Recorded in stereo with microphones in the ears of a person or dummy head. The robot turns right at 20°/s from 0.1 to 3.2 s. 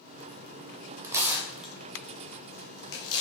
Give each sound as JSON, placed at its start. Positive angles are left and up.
{"t": 1.0, "sound": "tearing paper", "side_deg": -15, "distance_m": 0.8}